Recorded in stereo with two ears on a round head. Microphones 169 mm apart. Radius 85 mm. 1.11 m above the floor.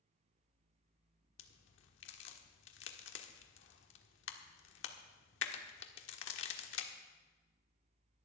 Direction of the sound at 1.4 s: 70° left (ahead or behind).